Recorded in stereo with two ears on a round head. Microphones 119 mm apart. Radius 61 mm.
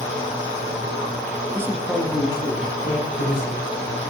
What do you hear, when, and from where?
1.5 s a man speaking: 25° right (ahead or behind), 0.9 m; by 4.0 s 70° left (ahead or behind), 2.5 m